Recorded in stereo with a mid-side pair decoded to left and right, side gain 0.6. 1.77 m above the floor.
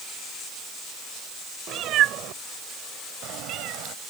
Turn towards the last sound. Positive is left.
turn(degrees=-70)